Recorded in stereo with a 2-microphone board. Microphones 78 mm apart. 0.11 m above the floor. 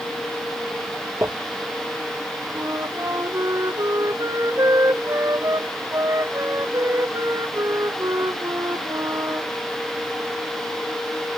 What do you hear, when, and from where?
1.2 s crumpling: 35° right (ahead or behind)
2.5 s a flute: 40° right (ahead or behind)